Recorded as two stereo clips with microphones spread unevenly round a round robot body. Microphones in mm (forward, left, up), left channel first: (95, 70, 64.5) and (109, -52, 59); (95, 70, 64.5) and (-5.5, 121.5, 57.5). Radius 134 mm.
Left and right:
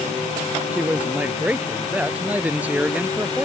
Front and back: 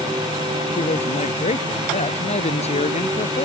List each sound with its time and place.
0.7 s a man speaking: 5° right